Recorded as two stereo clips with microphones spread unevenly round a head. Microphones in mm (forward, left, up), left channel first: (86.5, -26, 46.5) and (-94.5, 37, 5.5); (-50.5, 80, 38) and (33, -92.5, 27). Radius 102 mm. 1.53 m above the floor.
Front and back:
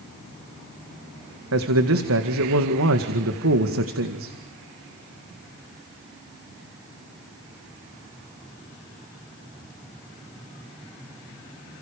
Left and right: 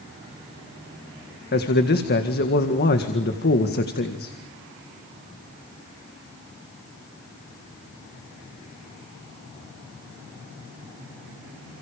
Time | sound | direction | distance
1.5 | a man speaking | 155° left | 2.0 m